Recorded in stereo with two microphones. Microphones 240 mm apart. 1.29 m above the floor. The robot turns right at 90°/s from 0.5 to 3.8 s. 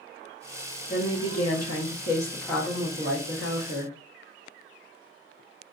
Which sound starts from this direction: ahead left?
A woman speaking, at 0.9 s.